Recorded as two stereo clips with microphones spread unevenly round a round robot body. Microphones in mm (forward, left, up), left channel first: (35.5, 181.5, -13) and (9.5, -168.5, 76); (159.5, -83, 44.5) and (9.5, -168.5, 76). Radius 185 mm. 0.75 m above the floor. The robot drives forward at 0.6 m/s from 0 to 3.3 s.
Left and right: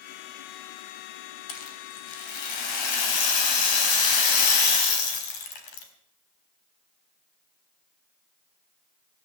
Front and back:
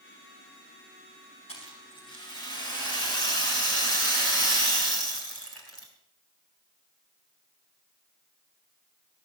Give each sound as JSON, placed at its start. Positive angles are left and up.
{"t": 1.5, "sound": "a rattle", "azimuth_deg": 100, "distance_m": 3.0}